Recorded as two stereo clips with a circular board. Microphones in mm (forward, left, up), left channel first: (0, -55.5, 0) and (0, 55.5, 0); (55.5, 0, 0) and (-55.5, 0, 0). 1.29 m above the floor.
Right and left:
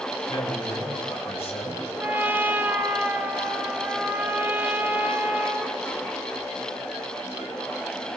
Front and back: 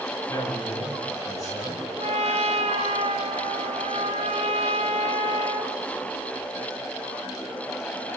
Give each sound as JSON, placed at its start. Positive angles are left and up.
{"t": 0.3, "sound": "a man speaking", "azimuth_deg": -55, "distance_m": 7.5}
{"t": 2.0, "sound": "a trumpet", "azimuth_deg": 165, "distance_m": 2.5}